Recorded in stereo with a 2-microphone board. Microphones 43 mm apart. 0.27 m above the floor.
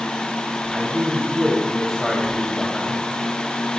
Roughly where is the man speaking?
Centre.